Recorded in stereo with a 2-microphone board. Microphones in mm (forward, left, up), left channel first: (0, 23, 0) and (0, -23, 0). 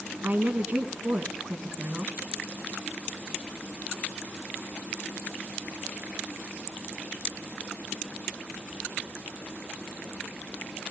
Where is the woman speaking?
40° right (ahead or behind), 2 m.